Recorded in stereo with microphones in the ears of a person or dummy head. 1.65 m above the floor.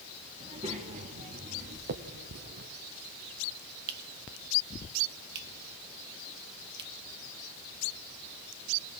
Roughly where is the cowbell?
No cowbell in this recording.